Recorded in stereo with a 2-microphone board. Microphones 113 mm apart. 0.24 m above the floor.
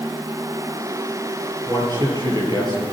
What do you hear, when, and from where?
1.7 s a man speaking: 35° right (ahead or behind), 5.5 m